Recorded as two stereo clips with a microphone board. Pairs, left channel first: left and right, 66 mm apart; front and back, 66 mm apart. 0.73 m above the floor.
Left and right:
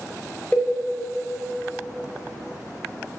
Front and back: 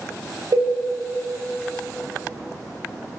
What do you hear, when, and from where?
0.5 s a cowbell: 165° left, 0.6 m